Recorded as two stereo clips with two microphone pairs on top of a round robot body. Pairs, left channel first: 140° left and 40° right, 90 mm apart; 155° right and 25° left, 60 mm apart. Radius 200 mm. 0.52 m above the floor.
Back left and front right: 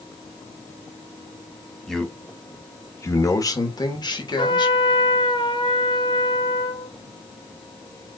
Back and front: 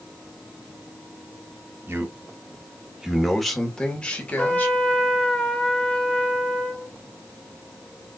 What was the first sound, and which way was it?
A man speaking, 60° left.